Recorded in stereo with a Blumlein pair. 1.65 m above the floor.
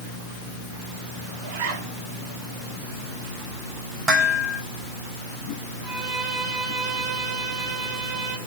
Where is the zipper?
45° right, 7.5 m.